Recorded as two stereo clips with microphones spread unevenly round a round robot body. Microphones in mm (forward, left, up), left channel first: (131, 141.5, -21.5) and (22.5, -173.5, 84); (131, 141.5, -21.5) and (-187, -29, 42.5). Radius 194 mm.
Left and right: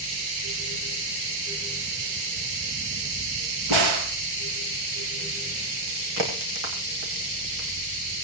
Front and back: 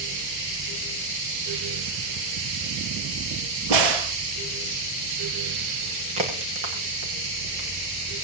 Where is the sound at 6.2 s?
125° right, 6.5 m.